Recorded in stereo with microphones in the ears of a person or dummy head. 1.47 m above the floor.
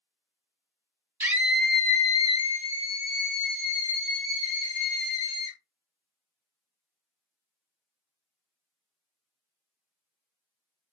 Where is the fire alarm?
I don't hear a fire alarm.